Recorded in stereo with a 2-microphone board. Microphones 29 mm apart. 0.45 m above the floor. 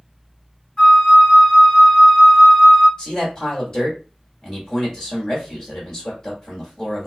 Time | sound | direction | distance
0.8 | a flute | 20° left (ahead or behind) | 1.4 m
3.0 | a man speaking | 25° left (ahead or behind) | 1.3 m